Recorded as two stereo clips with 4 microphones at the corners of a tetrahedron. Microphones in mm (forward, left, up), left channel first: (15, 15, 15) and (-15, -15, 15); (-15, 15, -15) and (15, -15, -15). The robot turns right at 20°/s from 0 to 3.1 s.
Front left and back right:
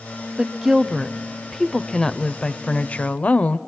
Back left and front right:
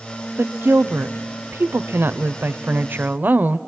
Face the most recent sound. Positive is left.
turn(degrees=-5)